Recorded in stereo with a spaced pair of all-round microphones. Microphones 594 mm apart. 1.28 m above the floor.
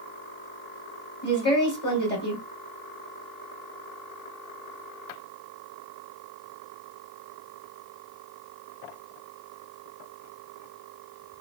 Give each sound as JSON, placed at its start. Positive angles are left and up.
{"t": 1.2, "sound": "a woman speaking", "side_deg": 15, "distance_m": 1.7}